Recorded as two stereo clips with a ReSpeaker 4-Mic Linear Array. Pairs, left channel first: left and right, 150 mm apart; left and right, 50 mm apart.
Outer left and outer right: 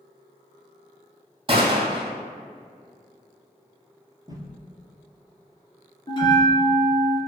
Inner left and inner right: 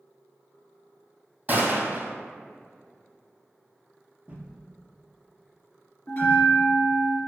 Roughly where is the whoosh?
Right.